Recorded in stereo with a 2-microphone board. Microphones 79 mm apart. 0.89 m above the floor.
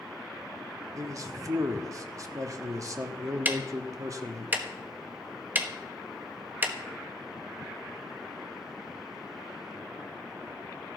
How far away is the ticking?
About 1.1 m.